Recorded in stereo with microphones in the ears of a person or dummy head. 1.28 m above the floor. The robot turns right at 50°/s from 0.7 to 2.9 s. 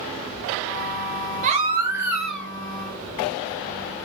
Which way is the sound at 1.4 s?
50° right.